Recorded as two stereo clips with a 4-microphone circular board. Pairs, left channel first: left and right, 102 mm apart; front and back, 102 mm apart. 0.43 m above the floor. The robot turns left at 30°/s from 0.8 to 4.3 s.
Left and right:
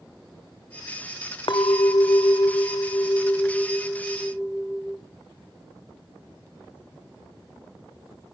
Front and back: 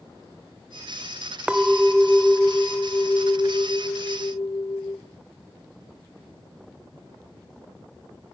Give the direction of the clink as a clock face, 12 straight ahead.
9 o'clock.